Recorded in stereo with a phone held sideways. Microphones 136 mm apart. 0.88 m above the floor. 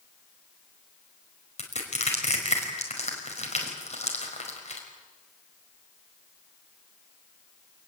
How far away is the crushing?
About 5 m.